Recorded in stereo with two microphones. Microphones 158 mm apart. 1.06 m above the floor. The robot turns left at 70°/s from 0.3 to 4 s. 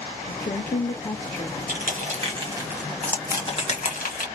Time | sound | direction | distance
0.3 | a woman speaking | 95° left | 0.8 m
1.7 | crushing | 60° right (ahead or behind) | 1.3 m